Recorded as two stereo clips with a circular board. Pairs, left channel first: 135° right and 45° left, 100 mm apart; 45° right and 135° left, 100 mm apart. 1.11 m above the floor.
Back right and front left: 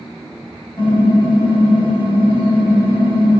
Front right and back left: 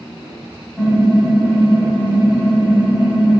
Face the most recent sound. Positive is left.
turn(degrees=-125)